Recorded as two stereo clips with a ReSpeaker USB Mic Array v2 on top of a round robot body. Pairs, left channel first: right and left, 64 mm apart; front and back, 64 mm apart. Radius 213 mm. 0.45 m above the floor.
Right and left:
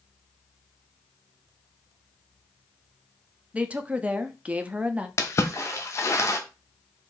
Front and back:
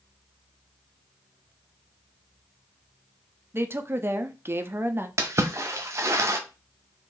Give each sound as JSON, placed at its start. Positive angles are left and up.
{"t": 3.5, "sound": "a woman speaking", "azimuth_deg": 150, "distance_m": 0.8}
{"t": 5.2, "sound": "a splash", "azimuth_deg": -135, "distance_m": 0.7}